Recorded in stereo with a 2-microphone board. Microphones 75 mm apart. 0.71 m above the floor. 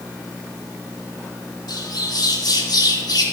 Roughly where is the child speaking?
I don't hear a child speaking.